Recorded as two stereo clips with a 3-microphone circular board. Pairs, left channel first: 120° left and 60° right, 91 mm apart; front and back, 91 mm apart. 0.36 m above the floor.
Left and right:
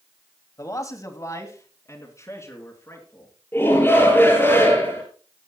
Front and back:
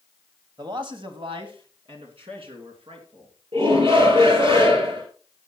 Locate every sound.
0.6 s a man speaking: 160° left, 1.5 m; by 3.3 s straight behind, 4.5 m
3.5 s a shout: 170° right, 5.5 m